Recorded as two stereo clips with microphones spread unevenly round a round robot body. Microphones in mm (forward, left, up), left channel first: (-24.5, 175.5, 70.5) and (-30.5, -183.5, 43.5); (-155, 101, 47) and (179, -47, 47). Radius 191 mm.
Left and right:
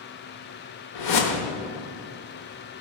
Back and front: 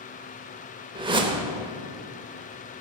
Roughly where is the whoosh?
Ahead left.